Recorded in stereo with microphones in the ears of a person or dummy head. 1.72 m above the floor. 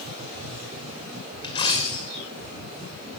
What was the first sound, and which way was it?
A dropped coin, 25° left (ahead or behind).